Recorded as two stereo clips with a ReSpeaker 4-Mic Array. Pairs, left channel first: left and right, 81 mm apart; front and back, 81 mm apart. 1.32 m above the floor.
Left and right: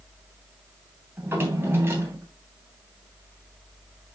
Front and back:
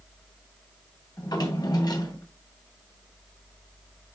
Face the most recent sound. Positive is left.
turn(degrees=-30)